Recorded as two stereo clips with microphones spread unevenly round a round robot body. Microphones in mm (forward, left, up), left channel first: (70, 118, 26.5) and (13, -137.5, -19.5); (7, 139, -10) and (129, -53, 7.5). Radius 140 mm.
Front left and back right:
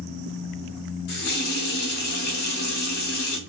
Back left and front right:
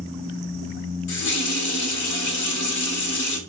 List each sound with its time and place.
1.1 s a running tap: 130° left, 0.9 m